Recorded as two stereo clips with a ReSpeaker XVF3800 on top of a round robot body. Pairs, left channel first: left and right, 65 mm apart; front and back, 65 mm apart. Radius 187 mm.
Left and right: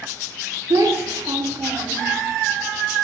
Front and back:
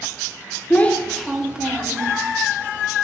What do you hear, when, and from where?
0.7 s a child speaking: 65° right, 0.8 m; by 2.2 s 120° right, 1.0 m